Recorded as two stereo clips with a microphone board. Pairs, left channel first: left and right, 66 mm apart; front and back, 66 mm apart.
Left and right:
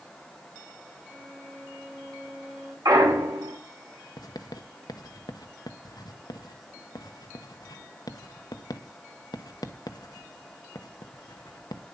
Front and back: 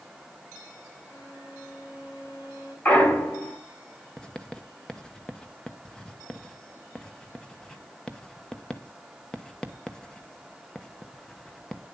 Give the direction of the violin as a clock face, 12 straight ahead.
1 o'clock.